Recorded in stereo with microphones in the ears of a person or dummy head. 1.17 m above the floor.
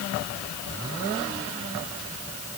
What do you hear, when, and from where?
Only background noise.